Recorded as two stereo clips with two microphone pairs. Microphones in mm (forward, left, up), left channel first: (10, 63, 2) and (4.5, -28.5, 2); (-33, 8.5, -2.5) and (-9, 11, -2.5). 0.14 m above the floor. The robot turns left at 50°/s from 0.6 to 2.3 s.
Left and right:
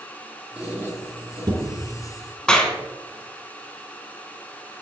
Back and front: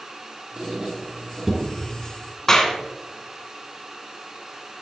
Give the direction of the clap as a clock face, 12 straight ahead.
7 o'clock.